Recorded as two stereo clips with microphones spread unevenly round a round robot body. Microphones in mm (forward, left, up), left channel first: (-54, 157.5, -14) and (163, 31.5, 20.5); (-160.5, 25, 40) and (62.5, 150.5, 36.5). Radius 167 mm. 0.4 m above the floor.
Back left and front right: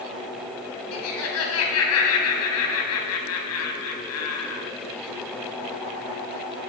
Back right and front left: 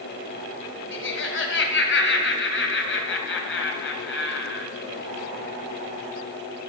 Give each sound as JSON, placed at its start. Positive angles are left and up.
{"t": 0.9, "sound": "laughter", "azimuth_deg": 170, "distance_m": 2.5}